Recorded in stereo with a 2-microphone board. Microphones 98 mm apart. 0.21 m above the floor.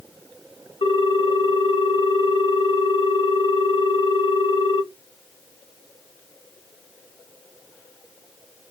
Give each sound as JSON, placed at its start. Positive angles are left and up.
{"t": 0.8, "sound": "a ringtone", "side_deg": 60, "distance_m": 0.7}